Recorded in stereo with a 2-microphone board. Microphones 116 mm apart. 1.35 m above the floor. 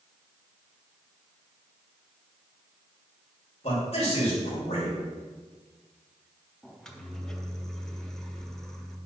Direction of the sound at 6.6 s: 5° left (ahead or behind).